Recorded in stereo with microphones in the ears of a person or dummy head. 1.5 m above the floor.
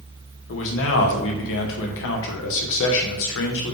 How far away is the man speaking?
About 1.1 m.